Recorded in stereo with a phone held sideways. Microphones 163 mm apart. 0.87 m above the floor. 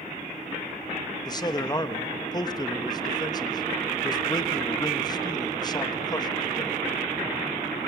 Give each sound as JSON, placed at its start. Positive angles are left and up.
{"t": 1.2, "sound": "a man speaking", "side_deg": 25, "distance_m": 1.2}